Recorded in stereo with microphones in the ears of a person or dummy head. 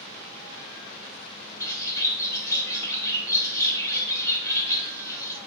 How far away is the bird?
About 1.0 m.